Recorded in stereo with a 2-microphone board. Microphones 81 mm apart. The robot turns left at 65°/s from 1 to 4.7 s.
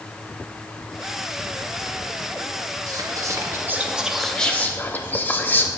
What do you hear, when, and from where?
2.9 s whispering: 90° right, 0.9 m; by 5.7 s 150° left, 0.9 m